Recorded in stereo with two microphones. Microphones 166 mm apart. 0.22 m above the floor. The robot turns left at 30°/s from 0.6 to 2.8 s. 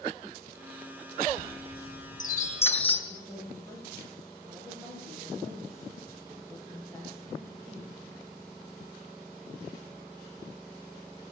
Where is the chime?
65° left (ahead or behind), 2.5 m; by 3.0 s 35° left (ahead or behind), 2.5 m.